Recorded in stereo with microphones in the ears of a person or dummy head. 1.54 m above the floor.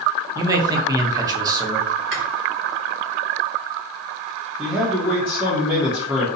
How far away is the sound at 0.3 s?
About 0.8 m.